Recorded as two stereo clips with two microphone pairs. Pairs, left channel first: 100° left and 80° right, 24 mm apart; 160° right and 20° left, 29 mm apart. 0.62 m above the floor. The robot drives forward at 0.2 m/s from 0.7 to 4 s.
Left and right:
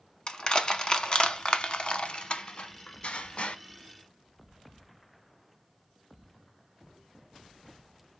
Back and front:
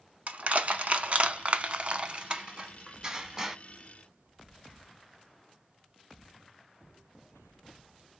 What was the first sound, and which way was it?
Crushing, 50° left.